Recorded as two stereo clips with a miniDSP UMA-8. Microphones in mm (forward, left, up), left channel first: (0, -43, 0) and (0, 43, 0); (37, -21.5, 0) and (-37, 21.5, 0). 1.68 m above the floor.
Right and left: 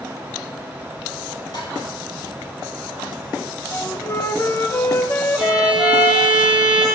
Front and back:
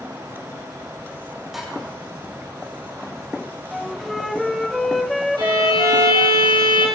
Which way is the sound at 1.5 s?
125° right.